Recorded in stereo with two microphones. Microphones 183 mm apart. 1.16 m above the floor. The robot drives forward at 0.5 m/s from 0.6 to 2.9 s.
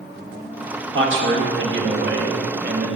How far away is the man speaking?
About 1.4 m.